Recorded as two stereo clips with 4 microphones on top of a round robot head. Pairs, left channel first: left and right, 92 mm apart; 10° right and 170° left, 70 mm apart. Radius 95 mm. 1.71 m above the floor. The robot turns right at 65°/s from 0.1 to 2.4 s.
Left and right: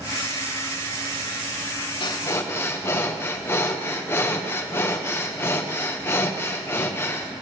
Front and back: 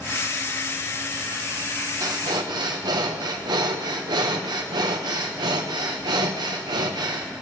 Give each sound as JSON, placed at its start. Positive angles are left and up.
{"t": 2.0, "sound": "breathing", "azimuth_deg": 125, "distance_m": 1.1}